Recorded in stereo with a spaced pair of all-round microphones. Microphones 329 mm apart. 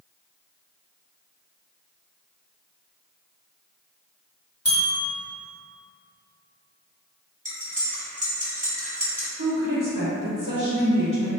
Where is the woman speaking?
65° right (ahead or behind), 0.8 m.